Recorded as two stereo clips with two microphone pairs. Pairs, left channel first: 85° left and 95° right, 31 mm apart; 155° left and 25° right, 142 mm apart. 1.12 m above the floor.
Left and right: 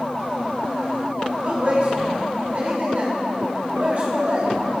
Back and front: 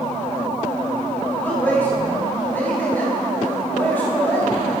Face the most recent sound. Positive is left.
turn(degrees=-130)